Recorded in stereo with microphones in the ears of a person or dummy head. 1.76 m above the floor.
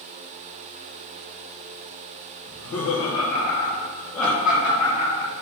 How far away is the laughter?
About 0.9 m.